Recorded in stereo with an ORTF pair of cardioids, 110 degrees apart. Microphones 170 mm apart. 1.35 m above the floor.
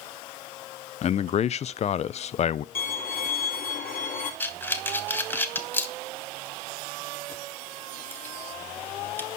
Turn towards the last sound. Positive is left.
turn(degrees=10)